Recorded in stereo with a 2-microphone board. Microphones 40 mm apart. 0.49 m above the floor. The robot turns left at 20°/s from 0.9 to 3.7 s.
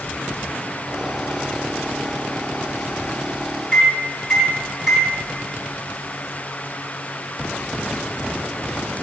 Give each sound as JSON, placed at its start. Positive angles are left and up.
{"t": 3.7, "sound": "a microwave", "side_deg": -10, "distance_m": 1.0}